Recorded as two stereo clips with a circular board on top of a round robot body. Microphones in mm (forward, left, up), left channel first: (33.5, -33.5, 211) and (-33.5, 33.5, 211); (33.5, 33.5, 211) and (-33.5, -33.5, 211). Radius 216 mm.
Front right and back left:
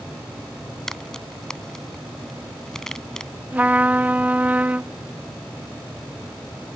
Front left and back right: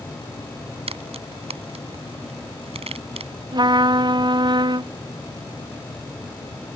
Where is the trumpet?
155° right.